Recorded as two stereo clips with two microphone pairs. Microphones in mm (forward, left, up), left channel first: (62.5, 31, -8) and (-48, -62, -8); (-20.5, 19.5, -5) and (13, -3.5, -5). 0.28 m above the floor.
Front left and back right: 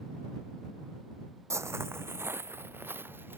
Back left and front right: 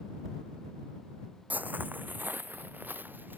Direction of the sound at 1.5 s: 70° right.